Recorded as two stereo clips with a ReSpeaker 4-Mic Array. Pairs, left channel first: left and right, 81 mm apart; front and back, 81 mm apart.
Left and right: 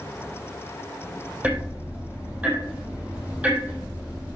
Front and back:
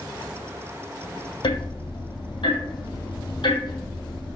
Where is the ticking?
20° right, 3 m.